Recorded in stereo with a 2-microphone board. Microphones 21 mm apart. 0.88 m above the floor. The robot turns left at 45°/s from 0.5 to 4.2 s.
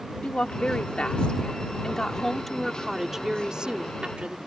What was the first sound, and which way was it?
A woman speaking, 100° left.